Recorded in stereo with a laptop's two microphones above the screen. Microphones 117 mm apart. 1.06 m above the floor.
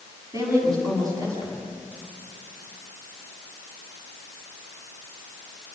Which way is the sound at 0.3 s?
30° right (ahead or behind).